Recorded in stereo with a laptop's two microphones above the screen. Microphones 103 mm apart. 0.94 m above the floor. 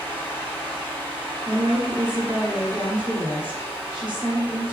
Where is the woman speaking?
50° right (ahead or behind), 1.7 m.